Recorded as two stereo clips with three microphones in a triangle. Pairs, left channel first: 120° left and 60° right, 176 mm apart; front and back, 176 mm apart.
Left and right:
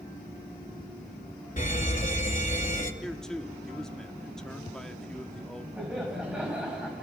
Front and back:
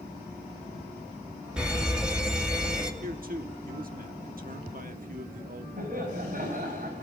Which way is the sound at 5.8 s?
145° right.